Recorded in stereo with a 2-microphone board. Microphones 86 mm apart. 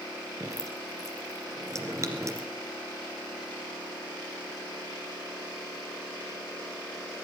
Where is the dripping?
40° right (ahead or behind), 2 m.